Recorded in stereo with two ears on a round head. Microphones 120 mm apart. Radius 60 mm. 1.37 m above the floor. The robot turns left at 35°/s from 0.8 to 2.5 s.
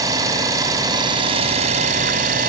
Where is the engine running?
30° right, 2.5 m; by 2.5 s 90° right, 2.5 m.